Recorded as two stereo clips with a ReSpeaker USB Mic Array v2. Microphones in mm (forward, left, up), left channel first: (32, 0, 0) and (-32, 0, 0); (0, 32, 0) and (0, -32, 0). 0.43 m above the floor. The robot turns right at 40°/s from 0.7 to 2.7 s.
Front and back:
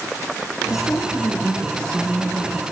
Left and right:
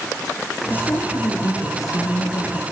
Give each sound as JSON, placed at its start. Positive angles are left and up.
{"t": 0.7, "sound": "a woman speaking", "azimuth_deg": 30, "distance_m": 5.5}